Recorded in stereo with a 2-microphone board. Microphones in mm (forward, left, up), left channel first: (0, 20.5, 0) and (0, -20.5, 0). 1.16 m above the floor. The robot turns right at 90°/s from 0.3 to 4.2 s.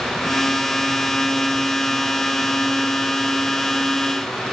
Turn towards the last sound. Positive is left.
No sound to turn to.